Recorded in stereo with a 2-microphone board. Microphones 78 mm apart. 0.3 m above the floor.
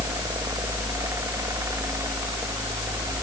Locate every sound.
Only background noise.